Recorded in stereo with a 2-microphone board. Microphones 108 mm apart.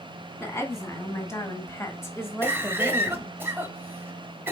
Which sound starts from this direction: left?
A woman speaking, at 0.4 s.